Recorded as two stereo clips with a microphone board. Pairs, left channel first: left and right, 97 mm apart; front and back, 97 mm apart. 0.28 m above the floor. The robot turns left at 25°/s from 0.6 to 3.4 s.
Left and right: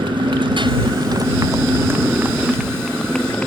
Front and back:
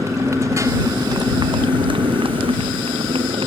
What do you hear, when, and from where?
0.0 s a motorcycle: 125° right; by 3.5 s 165° left